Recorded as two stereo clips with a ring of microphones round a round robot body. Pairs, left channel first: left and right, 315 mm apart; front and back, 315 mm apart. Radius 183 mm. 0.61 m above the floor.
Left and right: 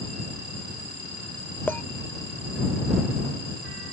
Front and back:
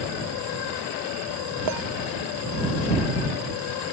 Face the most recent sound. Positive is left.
turn(degrees=175)